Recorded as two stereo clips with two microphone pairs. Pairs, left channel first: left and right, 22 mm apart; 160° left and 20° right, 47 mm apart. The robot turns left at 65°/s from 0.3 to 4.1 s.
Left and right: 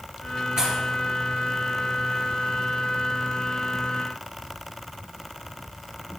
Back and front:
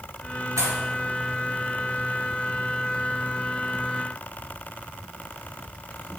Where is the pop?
30° right, 2.5 m; by 0.8 s 40° right, 2.5 m.